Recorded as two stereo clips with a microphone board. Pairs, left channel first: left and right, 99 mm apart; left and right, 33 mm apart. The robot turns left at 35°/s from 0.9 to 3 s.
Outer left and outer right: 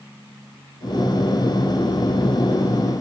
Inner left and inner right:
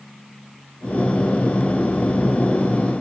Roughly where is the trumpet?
I don't hear a trumpet.